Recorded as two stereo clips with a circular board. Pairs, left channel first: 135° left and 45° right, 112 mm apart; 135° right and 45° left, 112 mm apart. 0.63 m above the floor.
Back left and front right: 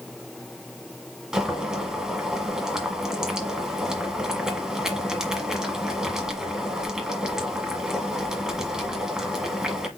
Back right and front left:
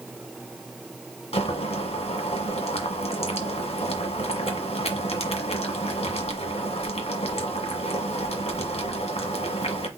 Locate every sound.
1.3 s boiling: 130° right, 1.5 m